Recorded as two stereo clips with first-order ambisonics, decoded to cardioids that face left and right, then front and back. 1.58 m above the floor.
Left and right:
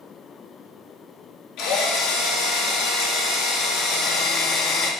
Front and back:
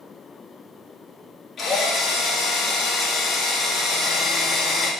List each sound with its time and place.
1.6 s a drill: 65° left, 3 m